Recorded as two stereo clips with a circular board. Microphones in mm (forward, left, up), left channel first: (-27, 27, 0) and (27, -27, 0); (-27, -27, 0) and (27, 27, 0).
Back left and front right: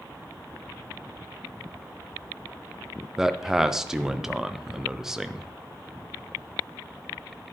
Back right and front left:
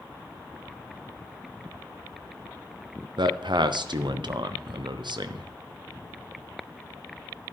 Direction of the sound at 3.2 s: 40° left.